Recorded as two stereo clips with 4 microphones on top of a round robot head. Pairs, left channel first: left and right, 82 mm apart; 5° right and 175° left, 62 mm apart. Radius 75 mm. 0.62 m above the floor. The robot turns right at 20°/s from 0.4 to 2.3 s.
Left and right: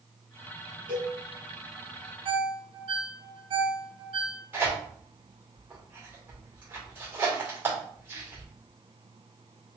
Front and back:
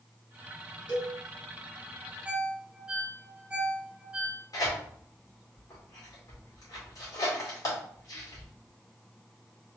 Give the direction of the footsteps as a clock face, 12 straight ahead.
No footsteps in this recording.